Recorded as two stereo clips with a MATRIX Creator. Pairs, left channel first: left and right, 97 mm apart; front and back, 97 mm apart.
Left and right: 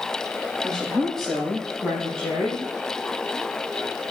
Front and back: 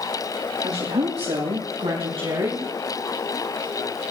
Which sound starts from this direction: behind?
A woman speaking, at 0.6 s.